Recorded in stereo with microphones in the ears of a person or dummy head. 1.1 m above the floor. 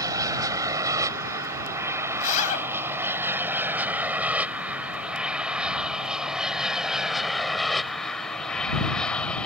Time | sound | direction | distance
0.0 | an aircraft | 15° right (ahead or behind) | ?
2.2 | a zipper | 45° left (ahead or behind) | ?